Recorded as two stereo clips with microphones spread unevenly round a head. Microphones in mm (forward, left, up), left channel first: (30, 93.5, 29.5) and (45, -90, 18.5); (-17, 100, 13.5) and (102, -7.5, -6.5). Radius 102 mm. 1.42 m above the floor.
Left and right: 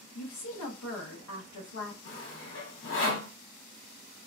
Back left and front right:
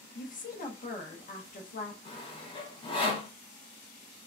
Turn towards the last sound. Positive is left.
turn(degrees=85)